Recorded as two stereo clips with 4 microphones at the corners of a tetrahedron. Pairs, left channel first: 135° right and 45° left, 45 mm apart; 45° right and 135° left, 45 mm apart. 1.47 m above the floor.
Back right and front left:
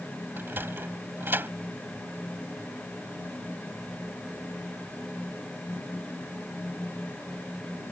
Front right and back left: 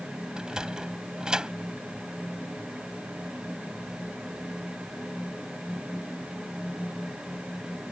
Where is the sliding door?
65° left.